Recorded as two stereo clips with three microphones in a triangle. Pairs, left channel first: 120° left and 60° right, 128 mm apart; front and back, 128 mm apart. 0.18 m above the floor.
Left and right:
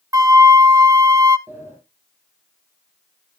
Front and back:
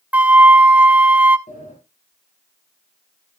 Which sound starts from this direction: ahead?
A sliding door, at 1.5 s.